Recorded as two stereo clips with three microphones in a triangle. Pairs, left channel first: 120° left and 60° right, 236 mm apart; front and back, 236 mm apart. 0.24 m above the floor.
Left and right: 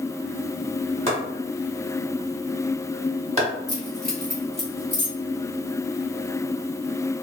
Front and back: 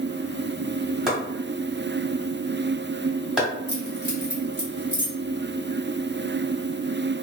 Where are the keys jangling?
10° right, 1.9 m.